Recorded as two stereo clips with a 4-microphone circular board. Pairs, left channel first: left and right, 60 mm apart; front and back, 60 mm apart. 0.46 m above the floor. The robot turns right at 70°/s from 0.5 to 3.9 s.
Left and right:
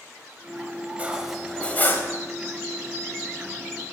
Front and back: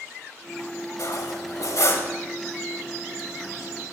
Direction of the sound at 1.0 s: 25° right.